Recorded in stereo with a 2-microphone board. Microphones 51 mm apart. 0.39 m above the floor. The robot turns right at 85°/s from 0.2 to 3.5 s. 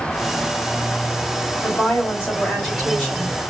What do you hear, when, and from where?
1.6 s a woman speaking: 80° left, 2 m; by 3.4 s 135° right, 2 m